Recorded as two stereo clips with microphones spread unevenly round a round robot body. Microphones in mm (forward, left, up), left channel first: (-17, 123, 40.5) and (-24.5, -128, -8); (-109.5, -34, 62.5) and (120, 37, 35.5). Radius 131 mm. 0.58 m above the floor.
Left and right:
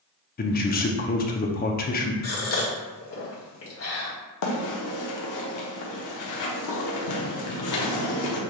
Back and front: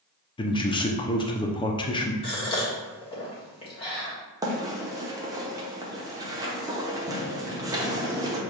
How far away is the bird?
About 1.0 m.